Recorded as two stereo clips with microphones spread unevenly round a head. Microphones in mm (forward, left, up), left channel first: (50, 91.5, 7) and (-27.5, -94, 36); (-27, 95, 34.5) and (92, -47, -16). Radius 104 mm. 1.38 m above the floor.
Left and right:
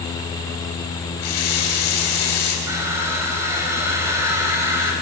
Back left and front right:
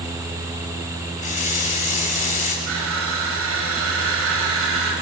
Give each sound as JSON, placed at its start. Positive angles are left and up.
{"t": 1.2, "sound": "a running tap", "azimuth_deg": 80, "distance_m": 5.5}
{"t": 2.7, "sound": "crushing", "azimuth_deg": -35, "distance_m": 4.5}